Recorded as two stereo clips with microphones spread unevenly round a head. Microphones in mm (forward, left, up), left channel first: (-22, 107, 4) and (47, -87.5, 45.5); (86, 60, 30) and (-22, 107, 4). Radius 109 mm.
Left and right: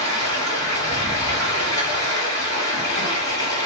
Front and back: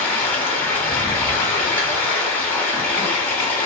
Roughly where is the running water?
Ahead left.